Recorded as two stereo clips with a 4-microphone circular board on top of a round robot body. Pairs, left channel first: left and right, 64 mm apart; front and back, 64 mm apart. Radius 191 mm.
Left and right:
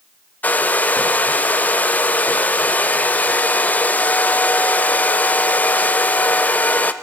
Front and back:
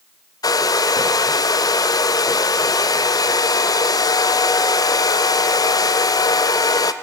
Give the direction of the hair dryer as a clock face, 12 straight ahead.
11 o'clock.